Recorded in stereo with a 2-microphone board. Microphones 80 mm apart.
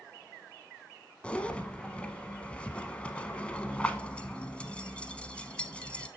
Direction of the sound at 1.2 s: 15° left (ahead or behind).